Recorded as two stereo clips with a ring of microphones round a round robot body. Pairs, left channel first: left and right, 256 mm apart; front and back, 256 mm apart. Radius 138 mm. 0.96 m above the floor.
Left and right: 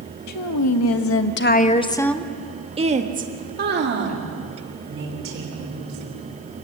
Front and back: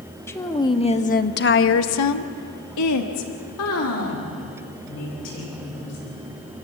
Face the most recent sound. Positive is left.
turn(degrees=-55)